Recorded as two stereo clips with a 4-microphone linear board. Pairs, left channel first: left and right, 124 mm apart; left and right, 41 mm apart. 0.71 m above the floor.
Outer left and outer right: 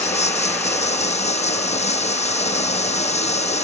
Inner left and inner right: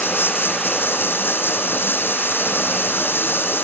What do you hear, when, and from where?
0.0 s running water: 55° left (ahead or behind)